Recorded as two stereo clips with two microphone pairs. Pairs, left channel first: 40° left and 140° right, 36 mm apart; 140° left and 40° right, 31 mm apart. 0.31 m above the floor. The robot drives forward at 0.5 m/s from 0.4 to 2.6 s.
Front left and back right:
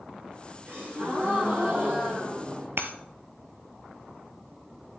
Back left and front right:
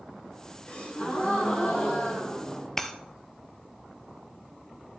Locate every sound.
0.7 s a gasp: 170° right, 4.5 m
2.8 s breaking glass: 140° right, 1.0 m